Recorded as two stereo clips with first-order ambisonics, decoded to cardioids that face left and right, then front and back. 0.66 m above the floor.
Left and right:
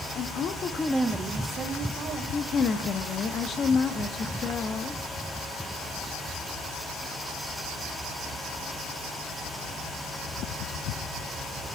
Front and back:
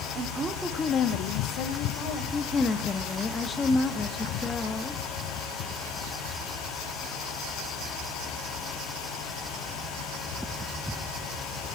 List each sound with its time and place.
0.1 s a woman speaking: 130° left, 1.1 m; by 2.2 s 30° right, 2.5 m
2.3 s a woman speaking: 60° left, 0.7 m